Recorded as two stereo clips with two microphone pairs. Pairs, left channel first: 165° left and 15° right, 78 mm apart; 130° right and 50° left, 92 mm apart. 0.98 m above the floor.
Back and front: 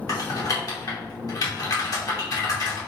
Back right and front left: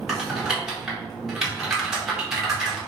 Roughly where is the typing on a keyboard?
Behind left.